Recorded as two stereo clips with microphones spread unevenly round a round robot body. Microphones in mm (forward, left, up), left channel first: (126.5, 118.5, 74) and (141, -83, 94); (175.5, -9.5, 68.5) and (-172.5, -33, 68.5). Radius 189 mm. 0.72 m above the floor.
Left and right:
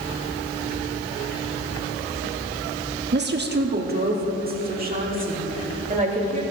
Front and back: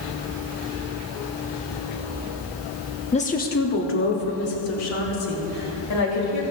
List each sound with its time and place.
3.1 s a woman speaking: 65° right, 1.5 m; by 6.4 s 35° right, 4.5 m